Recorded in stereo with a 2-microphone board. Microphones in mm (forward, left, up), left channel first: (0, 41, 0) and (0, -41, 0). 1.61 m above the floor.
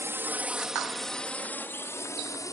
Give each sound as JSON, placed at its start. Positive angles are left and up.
{"t": 0.0, "sound": "a drone", "side_deg": -35}